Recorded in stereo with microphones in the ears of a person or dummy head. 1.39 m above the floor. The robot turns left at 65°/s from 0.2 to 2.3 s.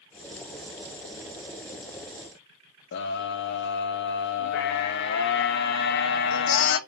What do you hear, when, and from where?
2.9 s a scream: 65° left (ahead or behind), 1.3 m